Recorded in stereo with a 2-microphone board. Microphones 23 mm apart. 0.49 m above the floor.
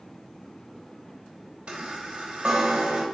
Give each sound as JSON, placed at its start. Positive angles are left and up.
{"t": 1.7, "sound": "a chime", "side_deg": -45, "distance_m": 0.9}